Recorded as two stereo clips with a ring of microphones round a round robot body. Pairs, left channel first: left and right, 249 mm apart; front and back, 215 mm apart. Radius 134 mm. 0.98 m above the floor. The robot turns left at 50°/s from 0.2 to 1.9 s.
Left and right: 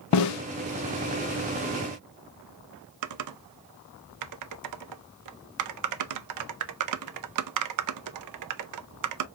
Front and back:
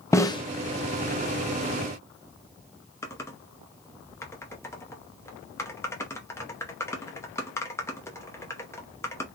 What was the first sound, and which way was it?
A snare drum, 80° left.